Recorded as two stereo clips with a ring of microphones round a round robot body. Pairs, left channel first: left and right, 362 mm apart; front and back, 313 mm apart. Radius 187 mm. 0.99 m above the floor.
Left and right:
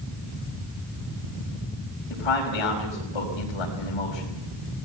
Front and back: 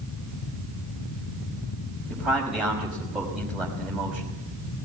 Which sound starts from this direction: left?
A man speaking, at 2.1 s.